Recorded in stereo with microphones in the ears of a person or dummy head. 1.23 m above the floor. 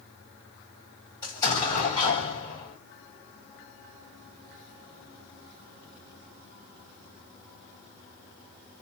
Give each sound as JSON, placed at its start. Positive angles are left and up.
{"t": 1.2, "sound": "an explosion", "side_deg": 25, "distance_m": 1.5}